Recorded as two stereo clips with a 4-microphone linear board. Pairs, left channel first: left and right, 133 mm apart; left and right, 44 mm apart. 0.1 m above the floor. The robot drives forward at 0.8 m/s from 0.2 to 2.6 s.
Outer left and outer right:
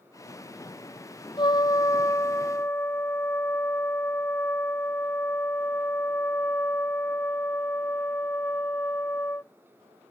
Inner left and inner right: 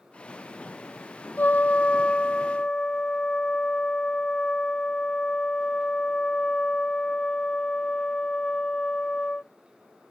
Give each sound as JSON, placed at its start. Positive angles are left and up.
{"t": 1.4, "sound": "a trumpet", "side_deg": 40}